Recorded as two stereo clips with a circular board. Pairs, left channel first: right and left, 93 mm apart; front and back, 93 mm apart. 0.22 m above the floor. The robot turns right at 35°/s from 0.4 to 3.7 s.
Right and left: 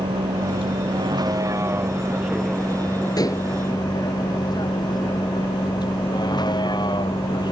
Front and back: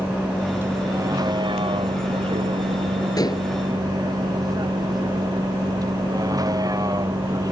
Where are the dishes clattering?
45° right; by 3.5 s 35° right.